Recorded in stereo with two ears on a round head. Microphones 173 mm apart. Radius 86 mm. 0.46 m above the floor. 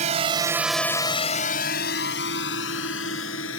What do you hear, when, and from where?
0.0 s a drone: 40° right (ahead or behind); by 3.6 s 75° left (ahead or behind)